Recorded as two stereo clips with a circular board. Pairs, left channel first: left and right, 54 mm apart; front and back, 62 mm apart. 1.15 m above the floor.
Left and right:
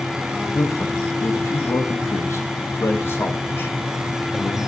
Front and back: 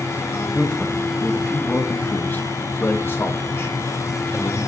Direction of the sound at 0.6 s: 80° left.